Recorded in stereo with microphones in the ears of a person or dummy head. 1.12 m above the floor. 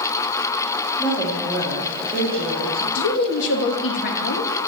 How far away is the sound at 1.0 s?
About 2 m.